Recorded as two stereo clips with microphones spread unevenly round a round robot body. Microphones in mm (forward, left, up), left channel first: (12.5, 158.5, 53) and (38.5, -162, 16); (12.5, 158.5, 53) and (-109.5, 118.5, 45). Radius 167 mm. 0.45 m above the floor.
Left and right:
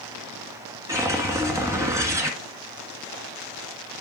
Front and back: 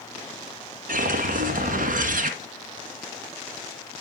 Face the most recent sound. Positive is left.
turn(degrees=-170)